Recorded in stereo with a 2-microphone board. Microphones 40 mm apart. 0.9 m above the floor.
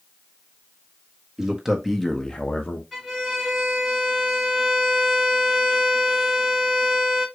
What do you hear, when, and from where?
1.4 s a man speaking: 10° right (ahead or behind), 1.4 m; by 2.8 s 50° left (ahead or behind), 0.8 m
2.9 s a violin: 15° left (ahead or behind), 1.8 m